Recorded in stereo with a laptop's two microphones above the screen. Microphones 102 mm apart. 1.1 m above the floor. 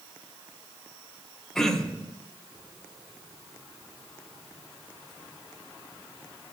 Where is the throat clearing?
5° left (ahead or behind), 1.0 m.